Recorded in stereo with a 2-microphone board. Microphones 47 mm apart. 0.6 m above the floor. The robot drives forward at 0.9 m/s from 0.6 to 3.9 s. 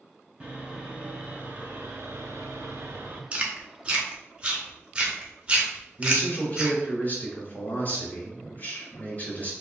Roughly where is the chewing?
Right.